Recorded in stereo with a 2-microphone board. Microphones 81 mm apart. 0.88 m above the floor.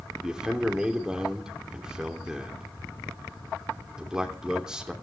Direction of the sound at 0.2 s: 10° right (ahead or behind).